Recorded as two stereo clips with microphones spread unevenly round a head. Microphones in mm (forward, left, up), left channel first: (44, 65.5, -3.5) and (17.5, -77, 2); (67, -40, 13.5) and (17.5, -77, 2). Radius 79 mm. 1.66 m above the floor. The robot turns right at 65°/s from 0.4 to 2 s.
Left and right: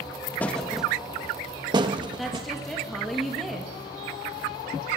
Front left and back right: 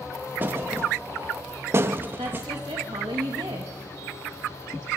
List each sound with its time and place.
0.4 s a thud: 155° left, 1.0 m; by 2.5 s 100° right, 1.0 m
2.2 s a woman speaking: 170° left, 1.9 m